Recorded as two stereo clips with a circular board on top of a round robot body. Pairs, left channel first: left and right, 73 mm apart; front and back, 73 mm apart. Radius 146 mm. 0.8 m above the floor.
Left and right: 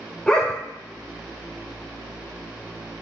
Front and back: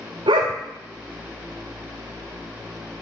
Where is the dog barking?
170° left, 0.8 m.